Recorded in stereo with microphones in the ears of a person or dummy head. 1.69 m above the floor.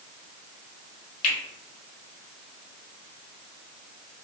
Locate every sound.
1.2 s a finger snap: 40° left (ahead or behind), 1.4 m